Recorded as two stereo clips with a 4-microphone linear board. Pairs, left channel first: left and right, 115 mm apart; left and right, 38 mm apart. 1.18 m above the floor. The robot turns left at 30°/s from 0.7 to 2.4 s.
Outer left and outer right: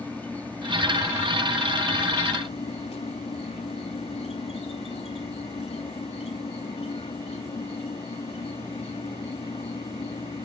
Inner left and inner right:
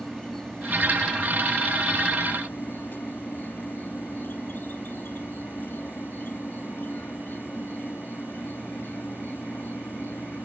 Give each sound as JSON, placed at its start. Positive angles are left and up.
{"t": 0.0, "sound": "an insect", "azimuth_deg": 165}